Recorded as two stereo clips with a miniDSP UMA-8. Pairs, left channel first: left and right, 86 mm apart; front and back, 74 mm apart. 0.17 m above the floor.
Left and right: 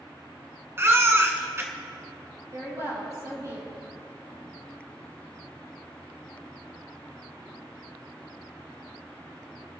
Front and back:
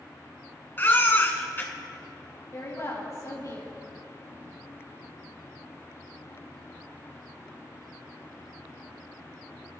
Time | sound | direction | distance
0.8 | a baby crying | 45° right | 1.5 m
2.5 | a woman speaking | 45° right | 3.5 m